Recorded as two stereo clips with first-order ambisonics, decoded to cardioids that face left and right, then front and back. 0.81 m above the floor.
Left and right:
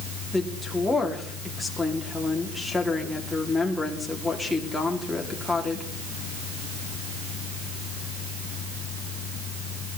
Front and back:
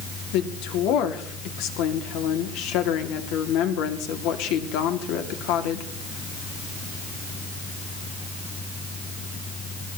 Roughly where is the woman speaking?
Ahead.